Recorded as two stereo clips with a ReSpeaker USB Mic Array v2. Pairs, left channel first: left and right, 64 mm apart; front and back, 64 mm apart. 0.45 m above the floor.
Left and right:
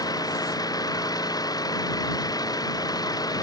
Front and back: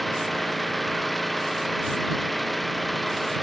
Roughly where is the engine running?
Left.